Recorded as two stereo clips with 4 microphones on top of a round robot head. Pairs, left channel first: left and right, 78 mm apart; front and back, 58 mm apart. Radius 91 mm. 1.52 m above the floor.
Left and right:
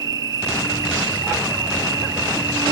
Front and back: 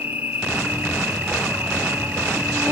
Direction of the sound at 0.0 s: 110° right.